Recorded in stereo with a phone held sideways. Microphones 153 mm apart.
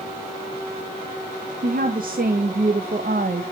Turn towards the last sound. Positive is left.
turn(degrees=-65)  # may be behind; listen again after turning